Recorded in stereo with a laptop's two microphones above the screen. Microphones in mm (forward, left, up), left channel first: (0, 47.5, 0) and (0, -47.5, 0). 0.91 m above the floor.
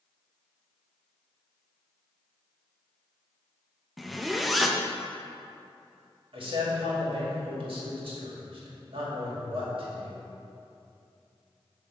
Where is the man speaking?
65° right (ahead or behind), 2 m.